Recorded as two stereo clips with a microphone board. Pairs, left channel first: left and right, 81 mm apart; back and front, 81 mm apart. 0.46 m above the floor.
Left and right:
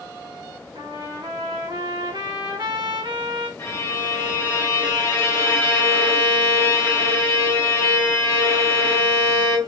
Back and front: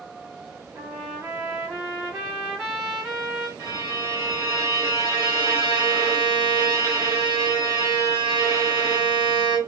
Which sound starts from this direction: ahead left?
A violin, at 3.6 s.